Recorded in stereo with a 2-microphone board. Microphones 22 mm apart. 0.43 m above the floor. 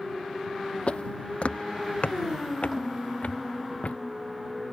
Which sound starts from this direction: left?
Footsteps, at 0.9 s.